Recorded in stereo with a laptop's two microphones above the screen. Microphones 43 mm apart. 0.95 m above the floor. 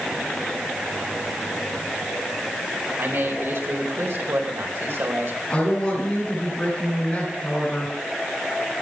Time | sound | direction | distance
3.0 | a man speaking | 85° right | 4 m
5.5 | a woman speaking | 25° left (ahead or behind) | 7 m